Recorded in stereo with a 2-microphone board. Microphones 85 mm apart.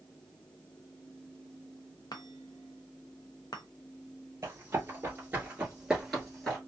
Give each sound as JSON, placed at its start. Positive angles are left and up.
{"t": 2.1, "sound": "a chime", "side_deg": 55, "distance_m": 0.6}
{"t": 4.4, "sound": "running footsteps", "side_deg": -30, "distance_m": 1.7}